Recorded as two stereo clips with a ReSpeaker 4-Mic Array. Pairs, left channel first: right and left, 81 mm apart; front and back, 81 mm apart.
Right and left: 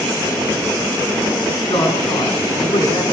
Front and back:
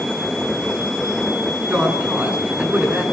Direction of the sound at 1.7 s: 110° right.